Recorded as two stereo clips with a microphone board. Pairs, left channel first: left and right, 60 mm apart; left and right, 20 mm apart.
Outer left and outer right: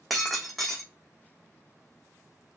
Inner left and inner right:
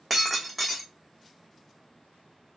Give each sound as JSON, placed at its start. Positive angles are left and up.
{"t": 0.1, "sound": "breaking glass", "side_deg": 0, "distance_m": 1.0}